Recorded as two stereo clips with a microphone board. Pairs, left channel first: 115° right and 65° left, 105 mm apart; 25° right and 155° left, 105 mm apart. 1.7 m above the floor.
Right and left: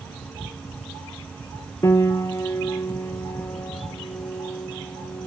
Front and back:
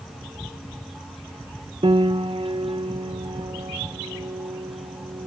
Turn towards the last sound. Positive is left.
turn(degrees=-175)